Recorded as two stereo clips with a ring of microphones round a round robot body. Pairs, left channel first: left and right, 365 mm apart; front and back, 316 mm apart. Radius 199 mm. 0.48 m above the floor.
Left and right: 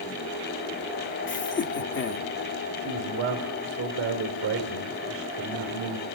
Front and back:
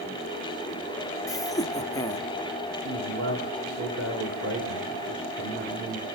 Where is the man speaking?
140° right, 2 m.